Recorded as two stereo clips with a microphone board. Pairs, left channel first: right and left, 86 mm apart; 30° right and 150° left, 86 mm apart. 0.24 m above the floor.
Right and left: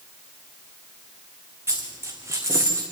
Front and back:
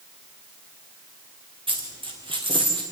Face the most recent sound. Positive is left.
turn(degrees=150)